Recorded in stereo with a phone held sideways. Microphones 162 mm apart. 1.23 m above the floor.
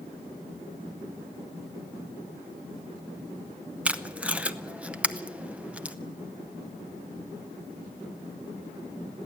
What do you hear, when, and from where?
3.9 s tape being pulled: 10° right (ahead or behind), 0.8 m